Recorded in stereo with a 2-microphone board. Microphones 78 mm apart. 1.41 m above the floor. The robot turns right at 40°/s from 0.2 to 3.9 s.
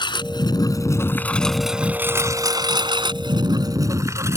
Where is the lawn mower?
75° left (ahead or behind); by 4.4 s 35° right (ahead or behind).